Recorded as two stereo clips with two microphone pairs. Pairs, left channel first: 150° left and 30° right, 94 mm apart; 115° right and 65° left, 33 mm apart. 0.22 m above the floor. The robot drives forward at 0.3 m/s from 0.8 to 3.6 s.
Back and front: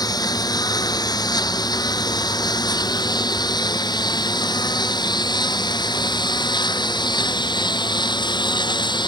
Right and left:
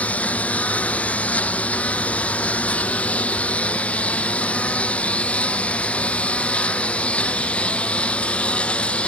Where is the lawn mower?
160° right; by 9.1 s 170° right.